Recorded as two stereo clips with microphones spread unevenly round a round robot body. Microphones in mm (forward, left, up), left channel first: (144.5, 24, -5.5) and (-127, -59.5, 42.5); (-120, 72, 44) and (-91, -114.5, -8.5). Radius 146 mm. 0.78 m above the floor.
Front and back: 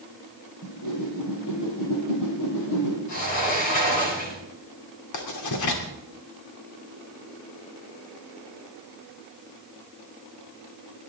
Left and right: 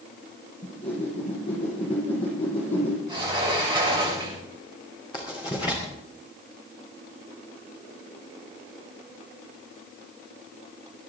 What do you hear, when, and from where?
0.6 s a whoosh: 45° left, 5.5 m
3.1 s a sliding door: 5° right, 8 m
5.1 s writing: 20° left, 2.5 m